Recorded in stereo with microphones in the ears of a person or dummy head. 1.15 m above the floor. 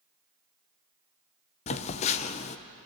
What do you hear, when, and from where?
1.7 s a phone buzzing: 40° left (ahead or behind), 0.8 m